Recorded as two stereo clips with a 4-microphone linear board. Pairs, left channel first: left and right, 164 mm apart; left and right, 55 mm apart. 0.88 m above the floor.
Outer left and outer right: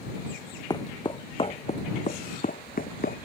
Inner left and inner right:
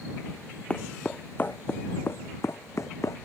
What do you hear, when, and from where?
0.7 s footsteps: 25° left (ahead or behind); by 3.2 s 65° left (ahead or behind)